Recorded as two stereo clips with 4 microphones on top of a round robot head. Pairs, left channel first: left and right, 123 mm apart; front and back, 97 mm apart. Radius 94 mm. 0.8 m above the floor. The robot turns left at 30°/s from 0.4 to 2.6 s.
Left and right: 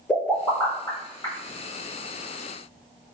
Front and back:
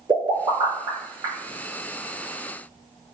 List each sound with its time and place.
0.1 s a pop: 160° left, 1.3 m; by 1.3 s 135° left, 1.3 m